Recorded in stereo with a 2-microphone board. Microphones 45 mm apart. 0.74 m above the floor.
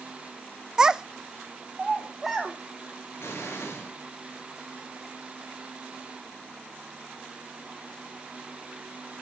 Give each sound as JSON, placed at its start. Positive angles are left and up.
{"t": 0.8, "sound": "a child speaking", "side_deg": -15, "distance_m": 0.6}
{"t": 3.2, "sound": "an explosion", "side_deg": 70, "distance_m": 6.5}